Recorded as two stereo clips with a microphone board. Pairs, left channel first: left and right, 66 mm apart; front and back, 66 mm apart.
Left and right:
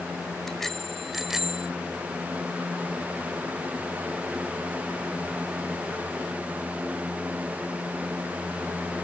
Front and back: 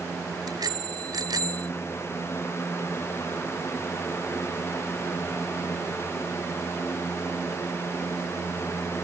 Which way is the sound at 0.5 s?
170° left.